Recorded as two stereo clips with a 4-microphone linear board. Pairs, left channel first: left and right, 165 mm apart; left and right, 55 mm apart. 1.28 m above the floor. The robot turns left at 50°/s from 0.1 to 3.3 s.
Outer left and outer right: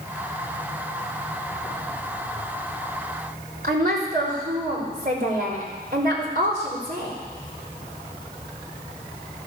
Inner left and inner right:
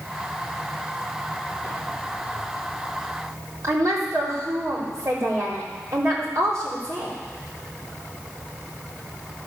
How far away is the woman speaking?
About 4 m.